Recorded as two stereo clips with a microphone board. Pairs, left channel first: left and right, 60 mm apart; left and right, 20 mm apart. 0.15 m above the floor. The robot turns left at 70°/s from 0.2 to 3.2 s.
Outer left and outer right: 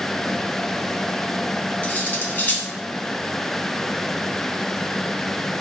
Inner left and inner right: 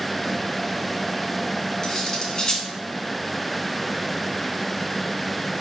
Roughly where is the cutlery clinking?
Left.